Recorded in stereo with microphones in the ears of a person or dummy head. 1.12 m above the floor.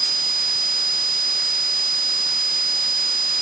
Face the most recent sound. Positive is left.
No sound to turn to.